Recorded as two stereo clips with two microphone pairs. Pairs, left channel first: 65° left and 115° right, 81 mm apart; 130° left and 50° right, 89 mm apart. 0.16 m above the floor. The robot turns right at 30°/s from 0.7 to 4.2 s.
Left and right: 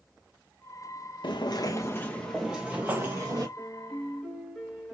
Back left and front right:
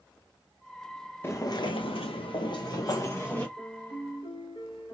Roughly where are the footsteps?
Left.